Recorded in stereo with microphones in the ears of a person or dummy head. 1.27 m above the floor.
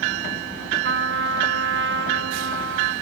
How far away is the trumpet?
About 1.4 m.